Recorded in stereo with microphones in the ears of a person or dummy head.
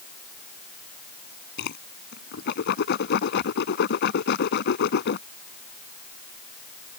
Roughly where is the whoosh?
Left.